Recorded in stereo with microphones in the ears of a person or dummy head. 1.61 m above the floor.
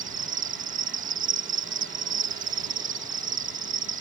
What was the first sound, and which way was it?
An insect, 35° right (ahead or behind).